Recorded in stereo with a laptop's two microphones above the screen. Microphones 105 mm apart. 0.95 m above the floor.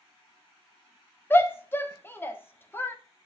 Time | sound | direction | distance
1.3 | a shout | 20° left (ahead or behind) | 0.9 m